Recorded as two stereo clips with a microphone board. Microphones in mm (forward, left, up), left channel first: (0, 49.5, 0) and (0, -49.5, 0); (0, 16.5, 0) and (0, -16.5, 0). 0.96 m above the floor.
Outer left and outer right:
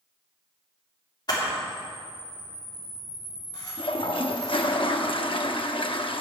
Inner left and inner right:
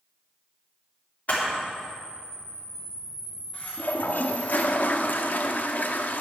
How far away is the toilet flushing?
About 0.6 m.